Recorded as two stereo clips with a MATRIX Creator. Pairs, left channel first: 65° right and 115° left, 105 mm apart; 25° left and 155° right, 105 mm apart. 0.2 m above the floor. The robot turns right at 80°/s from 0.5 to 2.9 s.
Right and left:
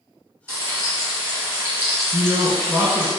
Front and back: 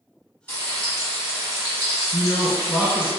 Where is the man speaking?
35° left, 1.5 m; by 3.1 s 100° left, 1.5 m.